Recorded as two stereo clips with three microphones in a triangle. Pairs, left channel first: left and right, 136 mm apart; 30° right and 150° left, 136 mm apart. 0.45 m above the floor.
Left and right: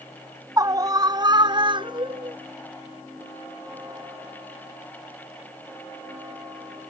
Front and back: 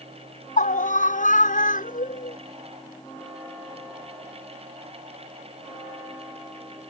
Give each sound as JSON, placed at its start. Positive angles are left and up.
{"t": 0.6, "sound": "a scream", "azimuth_deg": -25}